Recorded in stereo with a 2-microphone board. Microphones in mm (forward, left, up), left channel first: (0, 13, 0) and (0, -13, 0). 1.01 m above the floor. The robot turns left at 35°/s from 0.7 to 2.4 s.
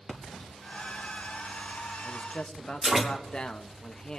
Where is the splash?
45° left (ahead or behind), 1.7 m; by 3.0 s 15° right (ahead or behind), 1.7 m.